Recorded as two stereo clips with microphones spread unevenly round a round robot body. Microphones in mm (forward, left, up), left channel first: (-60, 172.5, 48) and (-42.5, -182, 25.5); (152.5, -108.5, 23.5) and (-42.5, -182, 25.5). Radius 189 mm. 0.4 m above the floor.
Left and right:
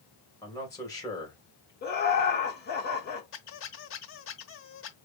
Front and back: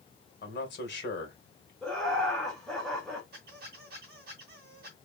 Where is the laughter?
105° left, 1.1 m.